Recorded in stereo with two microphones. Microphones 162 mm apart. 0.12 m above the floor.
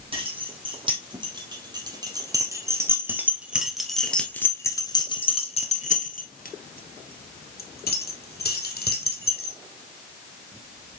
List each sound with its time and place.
0.1 s keys jangling: 35° right (ahead or behind), 3.5 m; by 9.6 s 70° left (ahead or behind), 3 m